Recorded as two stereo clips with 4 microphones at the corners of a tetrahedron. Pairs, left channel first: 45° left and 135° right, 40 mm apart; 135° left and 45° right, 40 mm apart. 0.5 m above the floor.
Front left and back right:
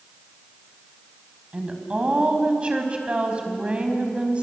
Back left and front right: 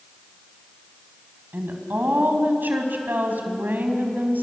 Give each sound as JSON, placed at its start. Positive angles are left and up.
{"t": 1.5, "sound": "a woman speaking", "azimuth_deg": -75, "distance_m": 4.0}